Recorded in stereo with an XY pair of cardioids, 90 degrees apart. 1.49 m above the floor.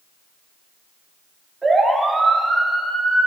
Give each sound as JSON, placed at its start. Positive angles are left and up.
{"t": 1.6, "sound": "a siren", "azimuth_deg": -25, "distance_m": 6.5}